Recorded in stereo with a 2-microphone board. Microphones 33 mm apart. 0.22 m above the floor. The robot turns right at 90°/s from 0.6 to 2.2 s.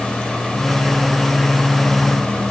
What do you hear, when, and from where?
Only background noise.